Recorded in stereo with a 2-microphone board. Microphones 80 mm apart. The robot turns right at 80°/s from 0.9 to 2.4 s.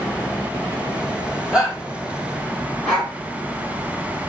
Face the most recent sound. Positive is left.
turn(degrees=10)  # may be behind; listen again after turning